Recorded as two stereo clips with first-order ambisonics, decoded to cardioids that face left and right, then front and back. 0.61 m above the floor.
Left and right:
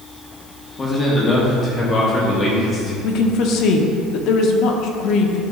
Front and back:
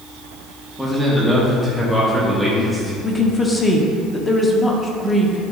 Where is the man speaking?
90° left, 1.2 m.